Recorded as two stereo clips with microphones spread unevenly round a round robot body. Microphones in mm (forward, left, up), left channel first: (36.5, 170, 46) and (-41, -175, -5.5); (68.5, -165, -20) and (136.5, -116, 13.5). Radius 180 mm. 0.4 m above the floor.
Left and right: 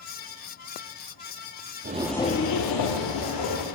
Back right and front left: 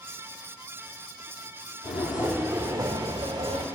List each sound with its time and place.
1.8 s footsteps: 170° right, 0.6 m; by 3.6 s 65° left, 1.5 m